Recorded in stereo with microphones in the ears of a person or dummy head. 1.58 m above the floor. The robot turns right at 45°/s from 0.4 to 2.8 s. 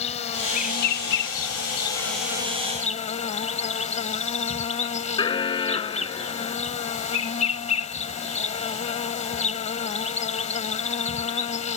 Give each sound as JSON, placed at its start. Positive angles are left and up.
{"t": 0.0, "sound": "an insect", "azimuth_deg": 35}
{"t": 5.2, "sound": "an alarm", "side_deg": 25}